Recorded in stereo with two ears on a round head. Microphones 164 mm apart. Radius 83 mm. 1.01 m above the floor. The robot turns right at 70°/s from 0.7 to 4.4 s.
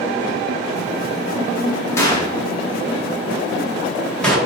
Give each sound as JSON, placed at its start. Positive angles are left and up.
{"t": 2.0, "sound": "a gunshot", "side_deg": 15, "distance_m": 1.7}